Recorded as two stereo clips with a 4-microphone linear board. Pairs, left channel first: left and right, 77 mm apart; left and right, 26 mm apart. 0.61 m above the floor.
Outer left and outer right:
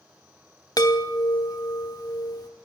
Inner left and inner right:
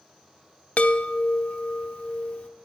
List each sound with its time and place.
0.8 s a chime: 55° left (ahead or behind), 0.9 m